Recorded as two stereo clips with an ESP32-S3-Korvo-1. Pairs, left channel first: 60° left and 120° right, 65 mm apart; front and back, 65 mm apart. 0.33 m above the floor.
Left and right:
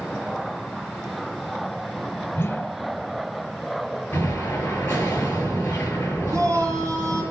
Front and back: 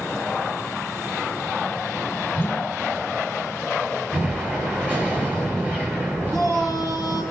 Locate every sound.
2.3 s a whoosh: 50° left, 1.1 m
4.1 s an explosion: 115° left, 7 m
6.3 s a shout: 150° right, 4.5 m